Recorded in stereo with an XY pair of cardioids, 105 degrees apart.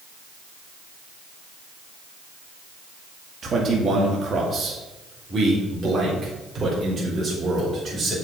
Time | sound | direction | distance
3.4 | a man speaking | 40° right | 2.0 m